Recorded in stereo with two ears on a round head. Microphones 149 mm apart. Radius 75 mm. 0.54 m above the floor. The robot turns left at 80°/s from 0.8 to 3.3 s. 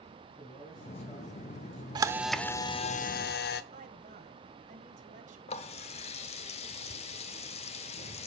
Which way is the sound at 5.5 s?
40° left (ahead or behind).